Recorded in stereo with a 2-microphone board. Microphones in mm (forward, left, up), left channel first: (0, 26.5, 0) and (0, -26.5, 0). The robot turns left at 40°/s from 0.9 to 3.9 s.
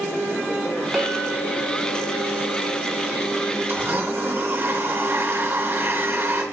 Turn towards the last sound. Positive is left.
turn(degrees=-50)  # may be behind; listen again after turning